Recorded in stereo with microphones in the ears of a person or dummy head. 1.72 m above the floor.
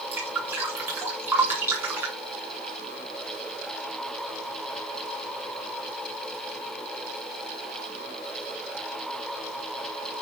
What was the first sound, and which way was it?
Dripping, 10° right (ahead or behind).